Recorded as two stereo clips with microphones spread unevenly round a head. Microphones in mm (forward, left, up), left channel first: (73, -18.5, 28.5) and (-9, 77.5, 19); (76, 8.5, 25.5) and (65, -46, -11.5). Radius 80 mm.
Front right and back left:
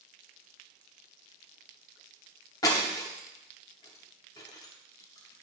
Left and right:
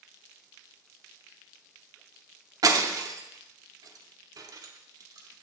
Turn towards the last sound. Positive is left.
turn(degrees=-75)